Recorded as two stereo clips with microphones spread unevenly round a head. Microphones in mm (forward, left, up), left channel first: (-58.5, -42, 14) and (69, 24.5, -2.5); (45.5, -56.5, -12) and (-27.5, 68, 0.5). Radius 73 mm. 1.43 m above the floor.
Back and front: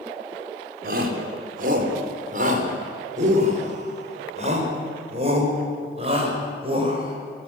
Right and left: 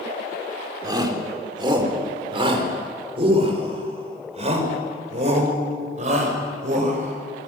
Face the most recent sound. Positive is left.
turn(degrees=85)